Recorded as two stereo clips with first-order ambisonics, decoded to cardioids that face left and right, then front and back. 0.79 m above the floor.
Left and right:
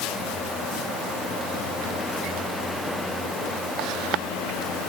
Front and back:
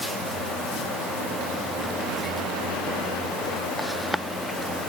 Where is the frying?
No frying in this recording.